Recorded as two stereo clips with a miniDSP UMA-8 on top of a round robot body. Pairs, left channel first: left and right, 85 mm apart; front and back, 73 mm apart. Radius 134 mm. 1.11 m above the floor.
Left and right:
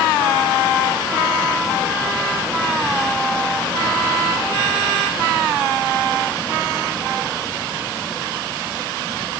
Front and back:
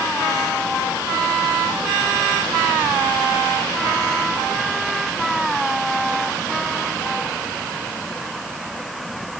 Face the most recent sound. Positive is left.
No sound to turn to.